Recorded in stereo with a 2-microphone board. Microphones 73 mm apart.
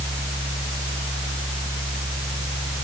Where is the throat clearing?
No throat clearing in this recording.